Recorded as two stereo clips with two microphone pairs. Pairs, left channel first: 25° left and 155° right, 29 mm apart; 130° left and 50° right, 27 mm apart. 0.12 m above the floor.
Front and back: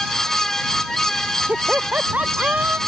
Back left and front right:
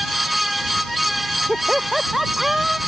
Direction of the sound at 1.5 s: 130° right.